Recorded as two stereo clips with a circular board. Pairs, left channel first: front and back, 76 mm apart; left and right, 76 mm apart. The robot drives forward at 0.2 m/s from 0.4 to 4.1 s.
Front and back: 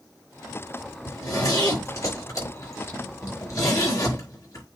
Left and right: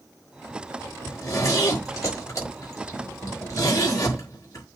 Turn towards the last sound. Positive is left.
turn(degrees=45)